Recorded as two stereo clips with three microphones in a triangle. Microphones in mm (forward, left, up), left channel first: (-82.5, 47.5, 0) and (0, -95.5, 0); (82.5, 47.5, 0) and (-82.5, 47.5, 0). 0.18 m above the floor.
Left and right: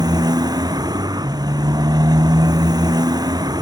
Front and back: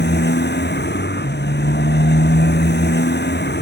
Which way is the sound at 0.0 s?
5° left.